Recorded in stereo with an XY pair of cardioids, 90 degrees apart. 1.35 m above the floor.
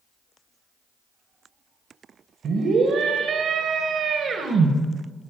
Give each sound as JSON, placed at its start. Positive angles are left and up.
{"t": 2.4, "sound": "a scream", "azimuth_deg": -70, "distance_m": 1.5}